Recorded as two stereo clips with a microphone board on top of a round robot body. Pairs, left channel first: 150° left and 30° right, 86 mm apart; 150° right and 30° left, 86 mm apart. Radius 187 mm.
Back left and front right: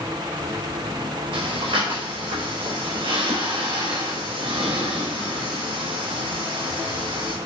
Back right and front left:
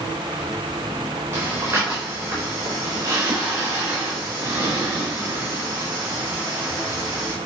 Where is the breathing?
30° right, 4 m.